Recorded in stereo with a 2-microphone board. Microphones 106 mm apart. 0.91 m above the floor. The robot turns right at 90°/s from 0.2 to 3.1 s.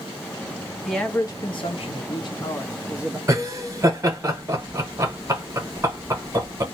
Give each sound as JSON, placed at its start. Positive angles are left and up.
{"t": 0.8, "sound": "a man speaking", "azimuth_deg": 0, "distance_m": 0.7}
{"t": 3.3, "sound": "laughter", "side_deg": -25, "distance_m": 0.9}